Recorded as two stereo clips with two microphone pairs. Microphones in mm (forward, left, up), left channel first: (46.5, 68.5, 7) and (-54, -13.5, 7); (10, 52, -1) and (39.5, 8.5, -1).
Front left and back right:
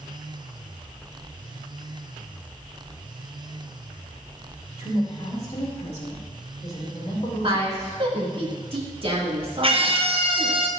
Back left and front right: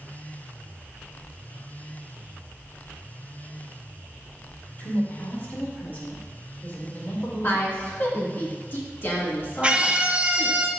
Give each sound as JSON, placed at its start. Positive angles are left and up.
{"t": 4.8, "sound": "a woman speaking", "azimuth_deg": 75, "distance_m": 2.0}
{"t": 7.4, "sound": "a woman speaking", "azimuth_deg": 175, "distance_m": 1.8}
{"t": 9.6, "sound": "a scream", "azimuth_deg": -120, "distance_m": 0.9}